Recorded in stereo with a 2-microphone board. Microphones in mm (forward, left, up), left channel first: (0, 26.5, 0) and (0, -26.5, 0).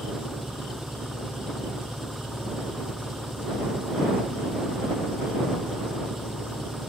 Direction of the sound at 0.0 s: 10° right (ahead or behind).